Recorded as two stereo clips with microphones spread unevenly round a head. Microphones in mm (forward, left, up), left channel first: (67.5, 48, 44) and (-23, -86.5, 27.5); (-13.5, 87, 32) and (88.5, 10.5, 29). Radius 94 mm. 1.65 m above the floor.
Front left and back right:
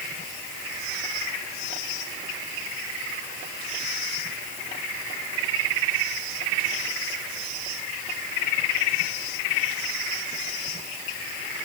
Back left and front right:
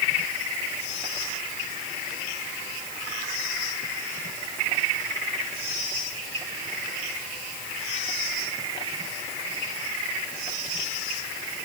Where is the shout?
No shout in this recording.